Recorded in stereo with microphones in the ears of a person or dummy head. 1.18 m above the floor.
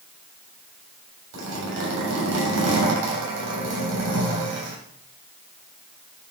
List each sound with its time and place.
1.3 s a zipper: 85° right, 3.5 m